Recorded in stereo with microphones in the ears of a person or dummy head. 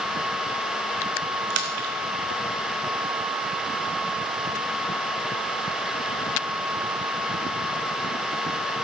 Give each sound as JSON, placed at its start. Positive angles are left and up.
{"t": 1.5, "sound": "a splash", "side_deg": -70, "distance_m": 0.8}